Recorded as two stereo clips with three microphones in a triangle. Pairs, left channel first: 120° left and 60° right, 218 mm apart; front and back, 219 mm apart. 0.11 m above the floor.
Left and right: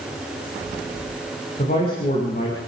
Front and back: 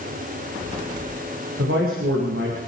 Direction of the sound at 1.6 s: 165° left.